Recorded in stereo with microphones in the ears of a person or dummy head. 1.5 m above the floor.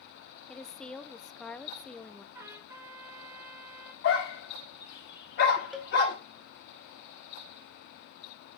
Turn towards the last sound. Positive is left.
turn(degrees=0)  # may be behind; listen again after turning